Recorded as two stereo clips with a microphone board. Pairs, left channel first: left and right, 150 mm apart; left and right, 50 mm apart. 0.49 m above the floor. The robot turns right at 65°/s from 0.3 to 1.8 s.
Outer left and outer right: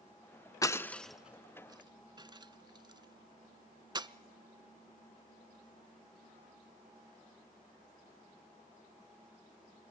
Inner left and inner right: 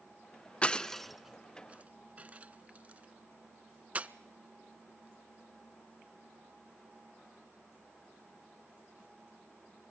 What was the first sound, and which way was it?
Breaking glass, 25° left (ahead or behind).